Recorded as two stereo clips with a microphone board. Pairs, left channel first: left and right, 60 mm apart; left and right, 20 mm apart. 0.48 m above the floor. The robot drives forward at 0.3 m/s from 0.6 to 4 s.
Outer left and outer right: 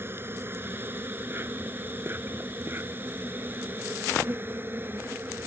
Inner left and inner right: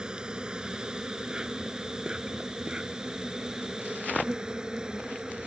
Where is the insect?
40° right (ahead or behind); by 5.5 s 35° right (ahead or behind).